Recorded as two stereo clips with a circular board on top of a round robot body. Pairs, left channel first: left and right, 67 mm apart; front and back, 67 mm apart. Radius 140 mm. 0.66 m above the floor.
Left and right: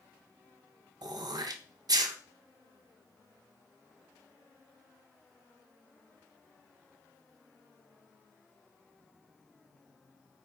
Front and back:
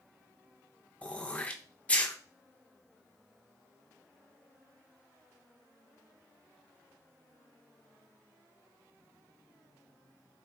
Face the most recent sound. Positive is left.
turn(degrees=-70)